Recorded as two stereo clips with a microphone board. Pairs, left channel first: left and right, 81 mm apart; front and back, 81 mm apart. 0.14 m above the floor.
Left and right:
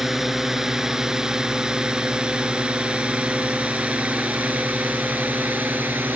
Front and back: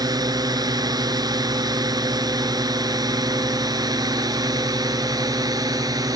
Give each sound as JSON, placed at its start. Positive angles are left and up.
{"t": 0.0, "sound": "a drone", "azimuth_deg": -175}